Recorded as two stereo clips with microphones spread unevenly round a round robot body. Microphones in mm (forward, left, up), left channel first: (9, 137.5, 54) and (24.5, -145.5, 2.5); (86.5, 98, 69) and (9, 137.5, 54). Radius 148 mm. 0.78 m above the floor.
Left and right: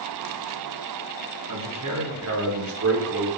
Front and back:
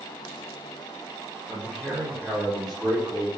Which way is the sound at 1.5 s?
110° right.